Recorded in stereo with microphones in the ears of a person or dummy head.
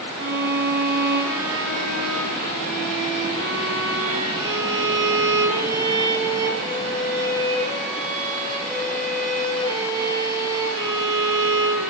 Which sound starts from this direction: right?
A violin, at 0.2 s.